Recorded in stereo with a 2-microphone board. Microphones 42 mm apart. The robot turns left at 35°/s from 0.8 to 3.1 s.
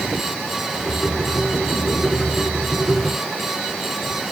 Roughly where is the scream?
I don't hear a scream.